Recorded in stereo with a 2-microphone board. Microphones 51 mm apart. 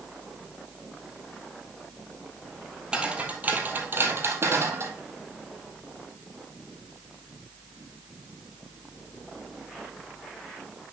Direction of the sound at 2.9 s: 15° right (ahead or behind).